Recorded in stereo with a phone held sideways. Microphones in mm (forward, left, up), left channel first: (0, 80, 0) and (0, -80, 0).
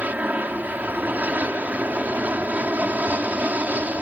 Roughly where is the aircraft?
Centre.